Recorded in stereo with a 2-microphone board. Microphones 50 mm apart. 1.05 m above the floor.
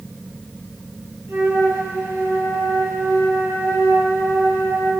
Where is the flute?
85° right, 7 m.